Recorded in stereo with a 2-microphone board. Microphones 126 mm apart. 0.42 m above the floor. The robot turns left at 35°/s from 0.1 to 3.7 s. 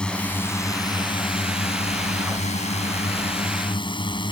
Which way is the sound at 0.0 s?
170° left.